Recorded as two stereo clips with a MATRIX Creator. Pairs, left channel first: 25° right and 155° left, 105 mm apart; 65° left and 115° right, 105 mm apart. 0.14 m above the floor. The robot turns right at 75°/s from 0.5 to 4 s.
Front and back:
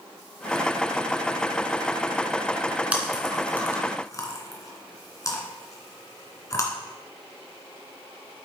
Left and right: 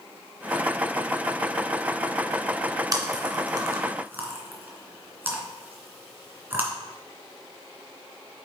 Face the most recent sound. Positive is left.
turn(degrees=-55)